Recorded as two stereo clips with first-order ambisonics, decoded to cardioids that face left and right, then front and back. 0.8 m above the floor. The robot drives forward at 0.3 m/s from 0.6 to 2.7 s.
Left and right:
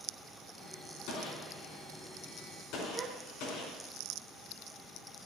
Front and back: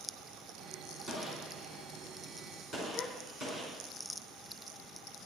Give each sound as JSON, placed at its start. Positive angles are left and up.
{"t": 1.1, "sound": "a gunshot", "azimuth_deg": 110, "distance_m": 4.0}
{"t": 2.9, "sound": "a gasp", "azimuth_deg": -55, "distance_m": 1.1}